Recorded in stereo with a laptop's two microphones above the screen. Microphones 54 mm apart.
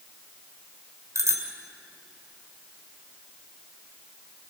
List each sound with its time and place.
1.1 s a bicycle bell: 65° right (ahead or behind), 2.5 m